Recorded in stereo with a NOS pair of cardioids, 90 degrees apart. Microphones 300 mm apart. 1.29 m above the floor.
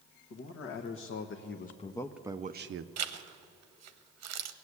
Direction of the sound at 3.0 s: 60° right.